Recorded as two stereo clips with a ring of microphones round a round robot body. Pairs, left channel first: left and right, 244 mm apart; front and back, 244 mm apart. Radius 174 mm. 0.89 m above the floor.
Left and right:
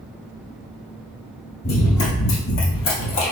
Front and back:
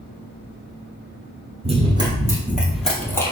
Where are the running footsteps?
120° left, 1.5 m; by 3.3 s 75° left, 1.5 m.